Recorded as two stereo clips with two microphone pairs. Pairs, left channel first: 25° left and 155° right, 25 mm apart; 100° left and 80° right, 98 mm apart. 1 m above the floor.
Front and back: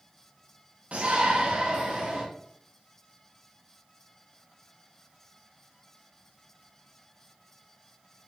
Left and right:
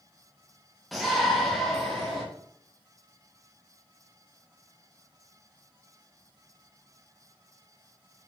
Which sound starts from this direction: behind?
A shout, at 0.9 s.